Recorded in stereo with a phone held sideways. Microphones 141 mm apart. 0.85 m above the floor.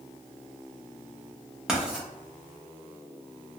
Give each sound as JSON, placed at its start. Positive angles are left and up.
{"t": 1.7, "sound": "writing", "side_deg": -5, "distance_m": 0.8}